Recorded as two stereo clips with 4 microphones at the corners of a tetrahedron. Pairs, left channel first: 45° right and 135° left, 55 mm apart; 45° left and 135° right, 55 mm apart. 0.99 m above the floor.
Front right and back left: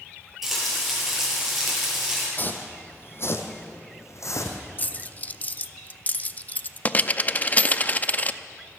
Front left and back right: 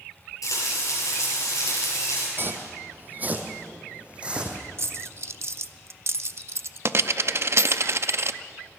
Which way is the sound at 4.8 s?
105° right.